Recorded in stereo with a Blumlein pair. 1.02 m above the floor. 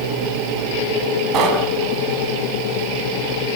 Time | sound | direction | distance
1.3 | knocking | 35° right | 5 m